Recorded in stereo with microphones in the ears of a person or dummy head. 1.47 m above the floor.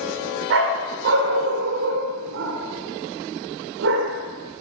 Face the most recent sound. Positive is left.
turn(degrees=-60)  # may be behind; listen again after turning